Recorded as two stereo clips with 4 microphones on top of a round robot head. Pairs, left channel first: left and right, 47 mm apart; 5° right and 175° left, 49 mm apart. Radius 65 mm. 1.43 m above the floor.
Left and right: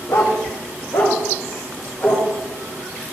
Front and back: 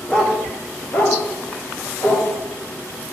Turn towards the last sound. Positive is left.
turn(degrees=25)